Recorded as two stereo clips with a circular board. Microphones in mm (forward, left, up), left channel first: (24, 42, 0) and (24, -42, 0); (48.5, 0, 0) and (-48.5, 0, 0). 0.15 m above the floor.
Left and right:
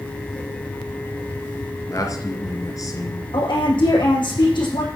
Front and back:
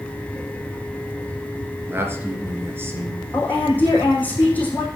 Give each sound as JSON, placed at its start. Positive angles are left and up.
{"t": 1.9, "sound": "a man speaking", "azimuth_deg": 120, "distance_m": 2.5}
{"t": 3.3, "sound": "a woman speaking", "azimuth_deg": 75, "distance_m": 7.0}